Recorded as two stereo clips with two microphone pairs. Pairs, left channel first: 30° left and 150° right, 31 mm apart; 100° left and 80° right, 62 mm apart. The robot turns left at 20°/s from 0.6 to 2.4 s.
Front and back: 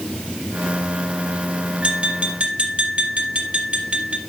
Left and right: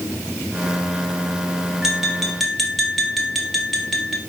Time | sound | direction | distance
1.8 | tapping | 160° right | 1.9 m